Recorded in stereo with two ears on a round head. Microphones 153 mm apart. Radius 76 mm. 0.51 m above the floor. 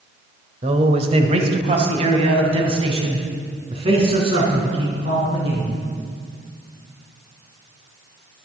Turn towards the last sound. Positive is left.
turn(degrees=-35)  # may be behind; listen again after turning